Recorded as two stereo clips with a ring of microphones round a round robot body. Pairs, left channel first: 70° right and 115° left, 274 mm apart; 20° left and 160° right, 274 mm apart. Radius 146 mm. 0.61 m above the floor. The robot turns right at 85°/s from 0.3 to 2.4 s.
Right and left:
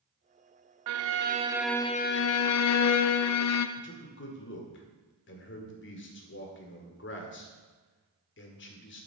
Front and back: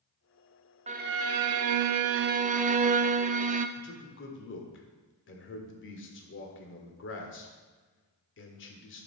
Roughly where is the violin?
Behind left.